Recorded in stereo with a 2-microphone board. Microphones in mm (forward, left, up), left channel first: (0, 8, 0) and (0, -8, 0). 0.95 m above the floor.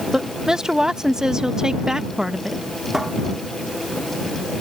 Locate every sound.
0.1 s a woman speaking: 45° right (ahead or behind)
2.9 s a cupboard door: 30° right (ahead or behind)